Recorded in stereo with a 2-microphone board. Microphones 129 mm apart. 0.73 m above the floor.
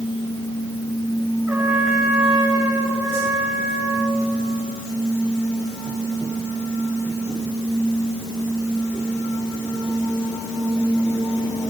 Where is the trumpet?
10° right (ahead or behind), 4 m.